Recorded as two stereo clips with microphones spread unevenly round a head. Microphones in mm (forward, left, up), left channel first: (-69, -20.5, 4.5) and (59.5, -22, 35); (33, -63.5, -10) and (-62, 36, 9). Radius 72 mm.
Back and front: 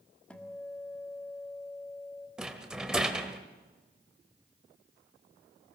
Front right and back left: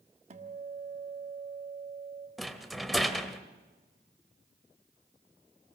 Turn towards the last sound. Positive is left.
turn(degrees=55)